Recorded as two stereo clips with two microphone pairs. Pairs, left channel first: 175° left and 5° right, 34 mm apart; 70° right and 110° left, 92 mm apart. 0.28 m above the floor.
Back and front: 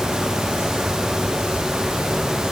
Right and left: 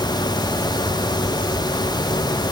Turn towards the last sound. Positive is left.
No sound to turn to.